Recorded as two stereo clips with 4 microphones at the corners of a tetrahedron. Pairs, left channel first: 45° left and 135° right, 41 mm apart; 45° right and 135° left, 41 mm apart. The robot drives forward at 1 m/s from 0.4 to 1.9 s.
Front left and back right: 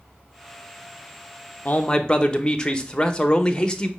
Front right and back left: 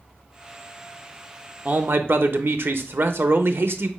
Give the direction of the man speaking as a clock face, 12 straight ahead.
9 o'clock.